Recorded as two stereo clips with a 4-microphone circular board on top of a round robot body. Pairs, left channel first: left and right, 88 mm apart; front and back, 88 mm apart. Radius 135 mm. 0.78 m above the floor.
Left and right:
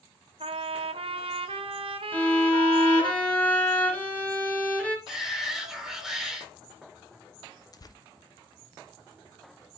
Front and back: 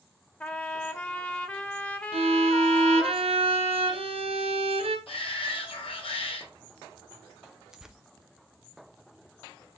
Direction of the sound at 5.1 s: 5° right.